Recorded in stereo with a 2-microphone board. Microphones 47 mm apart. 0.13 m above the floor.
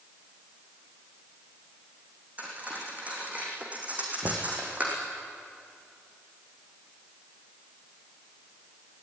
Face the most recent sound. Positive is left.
turn(degrees=-55)  # may be behind; listen again after turning